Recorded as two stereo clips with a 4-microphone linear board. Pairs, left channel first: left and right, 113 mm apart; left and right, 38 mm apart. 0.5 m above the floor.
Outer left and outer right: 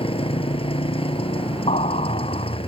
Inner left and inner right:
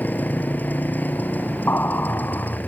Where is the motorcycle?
55° left (ahead or behind).